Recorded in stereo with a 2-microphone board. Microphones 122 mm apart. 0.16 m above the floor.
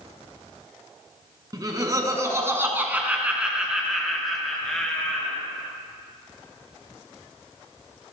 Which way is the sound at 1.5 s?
35° right (ahead or behind).